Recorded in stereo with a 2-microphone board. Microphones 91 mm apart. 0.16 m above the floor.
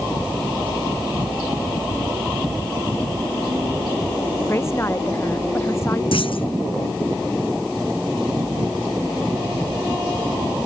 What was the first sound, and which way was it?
A woman speaking, 25° left (ahead or behind).